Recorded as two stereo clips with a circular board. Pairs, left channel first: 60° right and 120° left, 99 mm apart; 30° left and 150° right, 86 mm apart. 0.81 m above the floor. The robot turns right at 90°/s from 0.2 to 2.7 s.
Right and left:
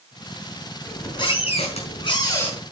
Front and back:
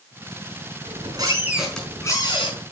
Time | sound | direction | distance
0.8 | a squeak | 135° right | 5 m